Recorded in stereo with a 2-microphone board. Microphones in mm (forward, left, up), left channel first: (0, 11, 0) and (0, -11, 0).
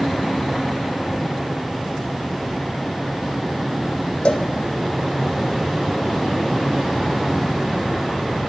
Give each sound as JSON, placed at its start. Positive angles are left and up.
{"t": 4.2, "sound": "a cowbell", "side_deg": 75, "distance_m": 3.0}